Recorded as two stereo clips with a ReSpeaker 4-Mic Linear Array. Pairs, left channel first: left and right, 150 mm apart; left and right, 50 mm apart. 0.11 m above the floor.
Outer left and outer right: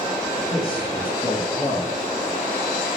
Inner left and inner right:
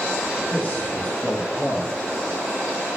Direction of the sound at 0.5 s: 35° left (ahead or behind).